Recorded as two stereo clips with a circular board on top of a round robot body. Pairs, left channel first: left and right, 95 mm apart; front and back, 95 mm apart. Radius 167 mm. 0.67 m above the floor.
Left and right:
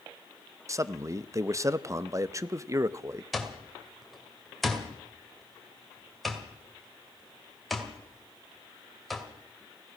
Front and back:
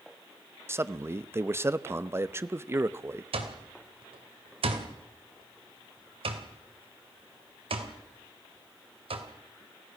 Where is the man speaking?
130° right, 1.0 m.